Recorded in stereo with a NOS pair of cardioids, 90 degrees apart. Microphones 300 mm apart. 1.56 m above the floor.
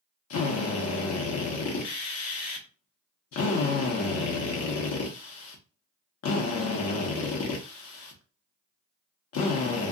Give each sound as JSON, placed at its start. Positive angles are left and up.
{"t": 0.3, "sound": "a drill", "azimuth_deg": 60, "distance_m": 1.1}